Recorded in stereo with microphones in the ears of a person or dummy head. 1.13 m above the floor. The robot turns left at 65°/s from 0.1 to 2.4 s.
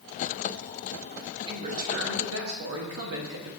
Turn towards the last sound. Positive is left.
turn(degrees=-85)